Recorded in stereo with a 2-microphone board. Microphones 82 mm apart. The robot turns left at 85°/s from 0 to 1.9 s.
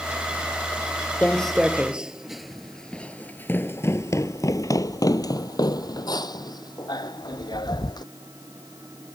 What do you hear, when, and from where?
1.2 s footsteps: 15° left (ahead or behind); by 8.0 s 55° left (ahead or behind)